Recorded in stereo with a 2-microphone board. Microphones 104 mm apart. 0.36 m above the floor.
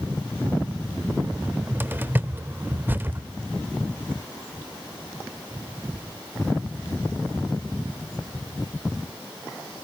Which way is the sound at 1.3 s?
20° right (ahead or behind).